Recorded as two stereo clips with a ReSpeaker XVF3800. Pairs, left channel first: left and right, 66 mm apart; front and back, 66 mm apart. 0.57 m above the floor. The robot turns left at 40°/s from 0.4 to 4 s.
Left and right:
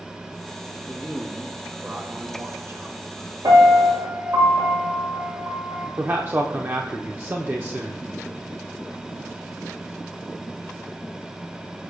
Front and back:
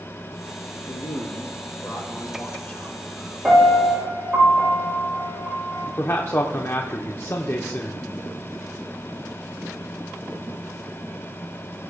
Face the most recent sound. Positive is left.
turn(degrees=-40)